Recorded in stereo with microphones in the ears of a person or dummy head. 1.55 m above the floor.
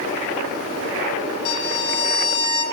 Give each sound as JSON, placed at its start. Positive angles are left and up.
{"t": 1.4, "sound": "a violin", "side_deg": 40, "distance_m": 3.0}